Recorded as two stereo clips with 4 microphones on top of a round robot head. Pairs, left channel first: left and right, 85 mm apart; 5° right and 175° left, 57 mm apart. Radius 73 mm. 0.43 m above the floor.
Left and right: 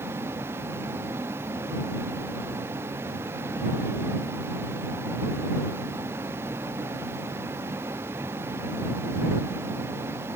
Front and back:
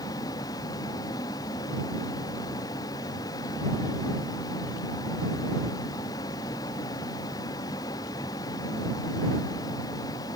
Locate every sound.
0.0 s a vehicle: 25° right